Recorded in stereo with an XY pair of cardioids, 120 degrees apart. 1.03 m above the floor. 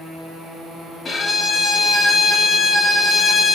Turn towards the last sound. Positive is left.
turn(degrees=30)